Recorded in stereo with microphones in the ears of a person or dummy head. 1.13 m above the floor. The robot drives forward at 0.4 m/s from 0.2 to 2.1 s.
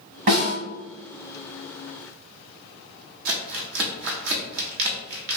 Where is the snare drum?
35° right (ahead or behind), 1.4 m.